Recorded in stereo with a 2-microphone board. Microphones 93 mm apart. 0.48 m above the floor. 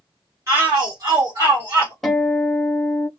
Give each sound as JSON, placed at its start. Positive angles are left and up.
{"t": 0.5, "sound": "a shout", "side_deg": -35, "distance_m": 1.2}
{"t": 2.0, "sound": "a guitar", "side_deg": 5, "distance_m": 1.1}